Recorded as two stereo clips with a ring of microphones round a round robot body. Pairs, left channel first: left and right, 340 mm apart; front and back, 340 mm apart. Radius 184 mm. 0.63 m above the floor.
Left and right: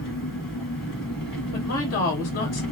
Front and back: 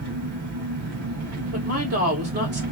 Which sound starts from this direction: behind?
An engine running, at 0.0 s.